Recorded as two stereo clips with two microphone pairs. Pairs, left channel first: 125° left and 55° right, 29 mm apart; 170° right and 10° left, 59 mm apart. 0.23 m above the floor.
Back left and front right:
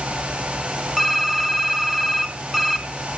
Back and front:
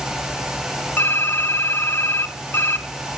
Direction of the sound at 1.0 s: 140° right.